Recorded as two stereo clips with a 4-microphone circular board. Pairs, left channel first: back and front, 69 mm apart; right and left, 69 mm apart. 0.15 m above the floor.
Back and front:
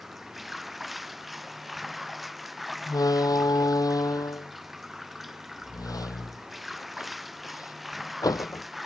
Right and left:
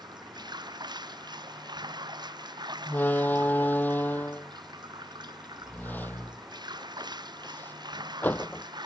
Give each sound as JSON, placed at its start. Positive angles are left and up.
{"t": 0.0, "sound": "running water", "azimuth_deg": 85}
{"t": 2.9, "sound": "a door slam", "azimuth_deg": -155}